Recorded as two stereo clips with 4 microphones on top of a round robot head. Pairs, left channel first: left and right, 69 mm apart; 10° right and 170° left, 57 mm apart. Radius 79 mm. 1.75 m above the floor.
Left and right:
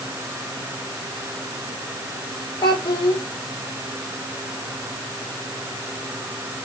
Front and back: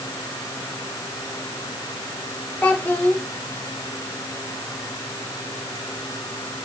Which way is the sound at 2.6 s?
55° left.